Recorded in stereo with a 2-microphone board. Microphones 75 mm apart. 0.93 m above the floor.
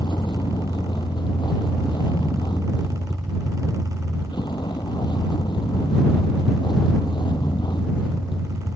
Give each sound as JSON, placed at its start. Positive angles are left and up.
{"t": 0.0, "sound": "a vehicle", "side_deg": 85}